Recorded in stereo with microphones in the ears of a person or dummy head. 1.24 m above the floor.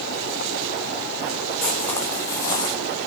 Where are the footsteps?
Centre (ahead or behind), 1.7 m; by 2.8 s 20° left (ahead or behind), 3 m.